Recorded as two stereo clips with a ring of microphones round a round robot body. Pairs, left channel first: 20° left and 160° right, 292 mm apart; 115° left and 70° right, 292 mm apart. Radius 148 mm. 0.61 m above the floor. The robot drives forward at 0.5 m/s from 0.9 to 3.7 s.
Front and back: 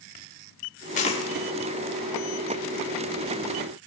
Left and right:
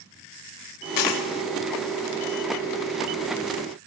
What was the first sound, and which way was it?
A dropped coin, 90° left.